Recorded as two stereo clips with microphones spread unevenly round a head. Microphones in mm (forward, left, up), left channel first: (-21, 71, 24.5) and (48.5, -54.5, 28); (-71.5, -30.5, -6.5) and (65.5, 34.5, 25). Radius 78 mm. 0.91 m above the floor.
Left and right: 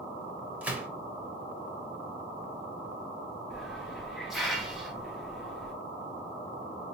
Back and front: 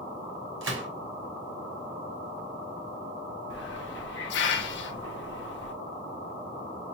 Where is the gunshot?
20° left, 1.0 m.